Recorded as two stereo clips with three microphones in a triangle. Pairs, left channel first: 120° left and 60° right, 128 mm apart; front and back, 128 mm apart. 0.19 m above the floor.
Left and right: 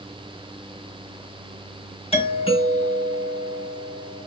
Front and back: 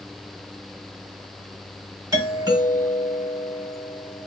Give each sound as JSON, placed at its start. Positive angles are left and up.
{"t": 2.1, "sound": "a doorbell", "azimuth_deg": 125, "distance_m": 3.0}